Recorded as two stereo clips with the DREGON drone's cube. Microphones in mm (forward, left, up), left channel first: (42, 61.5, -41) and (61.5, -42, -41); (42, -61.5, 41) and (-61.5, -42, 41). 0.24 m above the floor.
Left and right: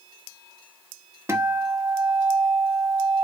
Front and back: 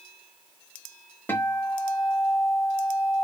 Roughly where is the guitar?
Ahead right.